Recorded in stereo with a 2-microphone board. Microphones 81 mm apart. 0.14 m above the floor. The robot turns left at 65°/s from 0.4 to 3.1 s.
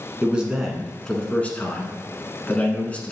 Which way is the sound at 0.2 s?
10° right (ahead or behind).